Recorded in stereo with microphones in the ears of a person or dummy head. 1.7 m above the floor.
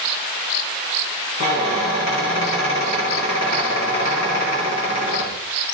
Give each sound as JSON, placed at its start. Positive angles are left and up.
{"t": 1.4, "sound": "a squeak", "side_deg": 35, "distance_m": 2.5}